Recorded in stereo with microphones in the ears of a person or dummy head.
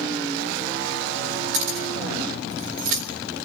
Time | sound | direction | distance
1.5 | keys jangling | 70° right (ahead or behind) | 3.5 m